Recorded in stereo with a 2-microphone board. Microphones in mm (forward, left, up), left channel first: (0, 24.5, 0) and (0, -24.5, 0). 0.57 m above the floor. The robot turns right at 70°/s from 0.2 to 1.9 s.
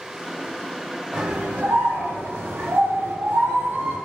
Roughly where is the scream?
Behind.